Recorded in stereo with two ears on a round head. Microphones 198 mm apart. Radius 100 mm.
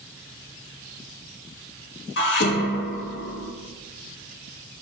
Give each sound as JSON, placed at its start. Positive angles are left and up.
{"t": 2.2, "sound": "dishes clattering", "side_deg": 55, "distance_m": 1.6}